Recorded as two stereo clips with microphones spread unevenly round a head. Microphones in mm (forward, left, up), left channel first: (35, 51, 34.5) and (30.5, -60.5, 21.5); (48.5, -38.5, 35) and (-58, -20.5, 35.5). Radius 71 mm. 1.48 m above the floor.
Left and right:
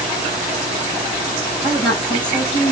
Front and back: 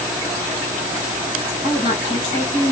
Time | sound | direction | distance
1.6 | a woman speaking | 40° left | 3 m